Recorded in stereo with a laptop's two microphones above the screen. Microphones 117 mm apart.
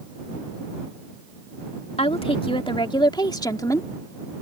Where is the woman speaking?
60° left (ahead or behind); by 3.9 s 25° left (ahead or behind).